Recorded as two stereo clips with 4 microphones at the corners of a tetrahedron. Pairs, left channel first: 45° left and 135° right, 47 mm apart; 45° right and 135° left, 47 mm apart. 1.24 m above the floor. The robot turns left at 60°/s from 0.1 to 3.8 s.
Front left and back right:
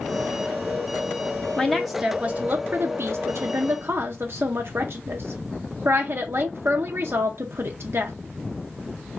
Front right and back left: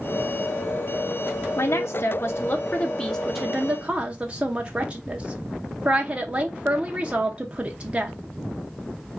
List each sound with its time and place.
1.6 s a woman speaking: 30° right, 0.6 m; by 8.2 s 165° right, 0.6 m